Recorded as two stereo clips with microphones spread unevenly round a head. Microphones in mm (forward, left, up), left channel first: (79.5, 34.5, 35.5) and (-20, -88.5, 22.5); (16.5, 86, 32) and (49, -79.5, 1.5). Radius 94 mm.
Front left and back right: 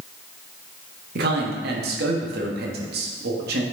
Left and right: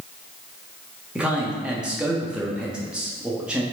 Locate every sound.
1.1 s a man speaking: 165° right, 1.2 m